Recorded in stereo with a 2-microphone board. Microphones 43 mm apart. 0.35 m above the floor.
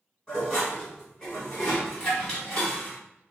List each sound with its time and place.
0.3 s dishes clattering: 15° left (ahead or behind), 1.7 m